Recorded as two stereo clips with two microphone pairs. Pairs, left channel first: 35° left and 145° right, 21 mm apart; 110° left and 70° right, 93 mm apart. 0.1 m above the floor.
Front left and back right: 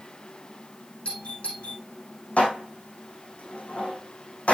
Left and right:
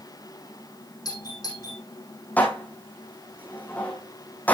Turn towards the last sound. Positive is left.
turn(degrees=40)